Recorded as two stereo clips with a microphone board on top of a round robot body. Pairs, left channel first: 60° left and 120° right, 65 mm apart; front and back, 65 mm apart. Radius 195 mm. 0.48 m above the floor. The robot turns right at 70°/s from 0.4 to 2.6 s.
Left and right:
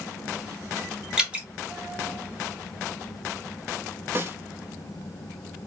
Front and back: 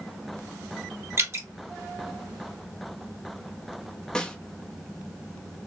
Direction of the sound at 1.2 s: 165° left.